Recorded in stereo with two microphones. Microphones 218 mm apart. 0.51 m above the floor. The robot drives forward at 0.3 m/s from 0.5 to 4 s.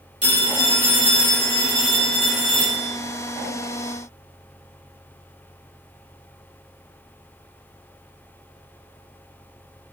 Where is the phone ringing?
35° right (ahead or behind), 1.5 m; by 2.9 s 25° right (ahead or behind), 2 m.